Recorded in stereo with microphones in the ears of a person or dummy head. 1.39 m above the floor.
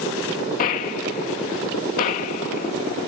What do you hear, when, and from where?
0.6 s a gunshot: 50° left (ahead or behind)